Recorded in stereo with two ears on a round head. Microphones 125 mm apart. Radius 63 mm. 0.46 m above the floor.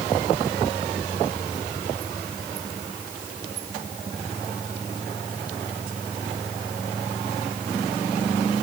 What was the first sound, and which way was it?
Only background noise.